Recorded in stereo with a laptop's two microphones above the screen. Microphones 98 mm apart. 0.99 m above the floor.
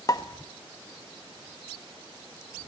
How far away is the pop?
About 1.4 m.